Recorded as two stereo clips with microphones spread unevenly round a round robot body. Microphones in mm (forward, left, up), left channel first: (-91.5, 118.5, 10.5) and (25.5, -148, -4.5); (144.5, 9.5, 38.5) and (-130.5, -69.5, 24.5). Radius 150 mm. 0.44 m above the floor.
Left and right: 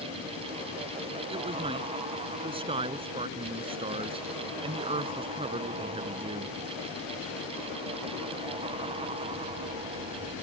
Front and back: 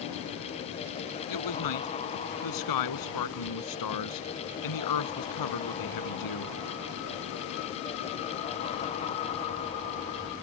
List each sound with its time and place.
1.3 s a man speaking: 5° left